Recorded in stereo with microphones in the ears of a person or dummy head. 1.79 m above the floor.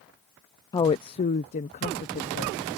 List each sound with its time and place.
0.7 s a woman speaking: 20° left (ahead or behind); by 2.6 s 40° left (ahead or behind)